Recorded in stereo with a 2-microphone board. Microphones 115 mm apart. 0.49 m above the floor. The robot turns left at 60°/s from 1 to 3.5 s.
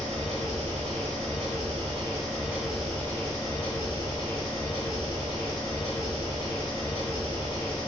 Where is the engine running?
70° right, 1.0 m; by 7.9 s 140° left, 1.0 m.